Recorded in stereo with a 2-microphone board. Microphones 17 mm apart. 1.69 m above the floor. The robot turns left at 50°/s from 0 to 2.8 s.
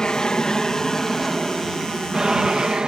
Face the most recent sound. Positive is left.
turn(degrees=-70)